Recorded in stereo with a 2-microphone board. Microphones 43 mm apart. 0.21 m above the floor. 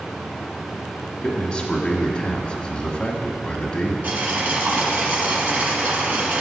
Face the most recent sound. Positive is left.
turn(degrees=-40)  # may be behind; listen again after turning